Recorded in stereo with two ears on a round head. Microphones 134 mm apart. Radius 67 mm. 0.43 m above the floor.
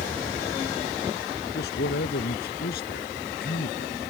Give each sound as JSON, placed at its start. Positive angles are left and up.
{"t": 1.6, "sound": "a man speaking", "side_deg": 75}